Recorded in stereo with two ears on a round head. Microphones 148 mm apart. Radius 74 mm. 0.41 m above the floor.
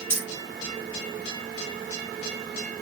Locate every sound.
0.1 s keys jangling: 15° left (ahead or behind), 6.5 m